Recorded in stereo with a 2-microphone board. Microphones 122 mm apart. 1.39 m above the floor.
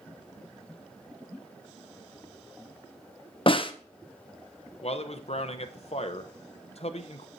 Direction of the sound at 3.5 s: 45° left (ahead or behind).